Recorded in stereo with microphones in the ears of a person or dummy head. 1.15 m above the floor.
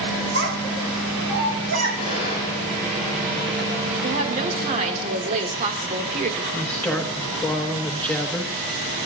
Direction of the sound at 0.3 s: 80° right.